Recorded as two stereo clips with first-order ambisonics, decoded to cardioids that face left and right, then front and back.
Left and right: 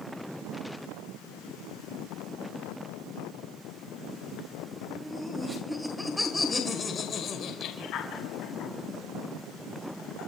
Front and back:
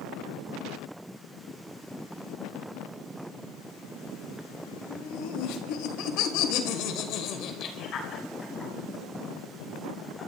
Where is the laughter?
15° right, 2.5 m; by 10.3 s 85° left, 3.5 m.